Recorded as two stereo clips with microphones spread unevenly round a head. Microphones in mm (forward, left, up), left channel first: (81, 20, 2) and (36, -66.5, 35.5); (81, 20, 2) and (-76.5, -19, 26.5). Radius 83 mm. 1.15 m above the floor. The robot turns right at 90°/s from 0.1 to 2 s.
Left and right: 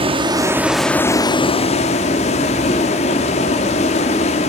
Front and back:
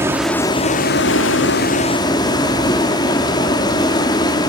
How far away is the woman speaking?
I don't hear a woman speaking.